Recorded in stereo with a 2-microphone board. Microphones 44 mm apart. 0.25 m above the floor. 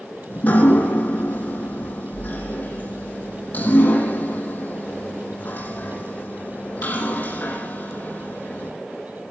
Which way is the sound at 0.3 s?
40° left (ahead or behind).